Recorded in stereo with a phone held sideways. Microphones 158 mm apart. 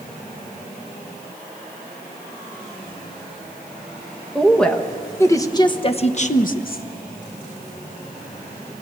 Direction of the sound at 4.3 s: Centre (ahead or behind).